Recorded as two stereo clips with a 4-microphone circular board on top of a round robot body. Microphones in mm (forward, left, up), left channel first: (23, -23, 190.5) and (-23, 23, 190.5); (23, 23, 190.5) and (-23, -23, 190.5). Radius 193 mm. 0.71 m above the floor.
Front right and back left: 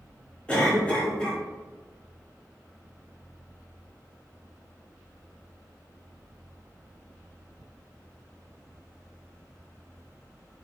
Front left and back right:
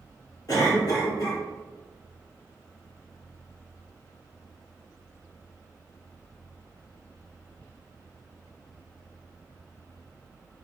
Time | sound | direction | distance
0.5 | a cough | 30° left | 1.7 m